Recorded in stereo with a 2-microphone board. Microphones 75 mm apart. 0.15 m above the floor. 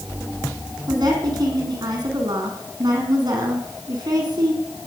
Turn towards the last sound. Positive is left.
turn(degrees=-60)  # may be behind; listen again after turning